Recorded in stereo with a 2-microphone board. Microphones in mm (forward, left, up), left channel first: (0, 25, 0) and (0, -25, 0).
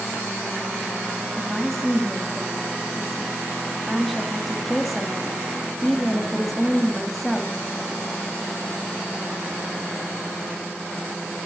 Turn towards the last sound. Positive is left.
turn(degrees=0)  # may be behind; listen again after turning